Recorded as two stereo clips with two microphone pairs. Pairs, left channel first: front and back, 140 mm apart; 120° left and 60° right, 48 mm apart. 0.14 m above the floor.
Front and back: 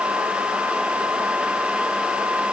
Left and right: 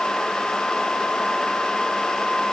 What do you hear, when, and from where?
Only background noise.